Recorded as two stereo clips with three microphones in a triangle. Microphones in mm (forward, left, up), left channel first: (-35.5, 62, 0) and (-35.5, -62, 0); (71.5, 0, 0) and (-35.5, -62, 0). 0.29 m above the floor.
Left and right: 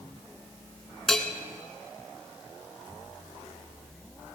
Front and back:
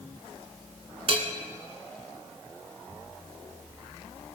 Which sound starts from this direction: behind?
A bell, at 1.1 s.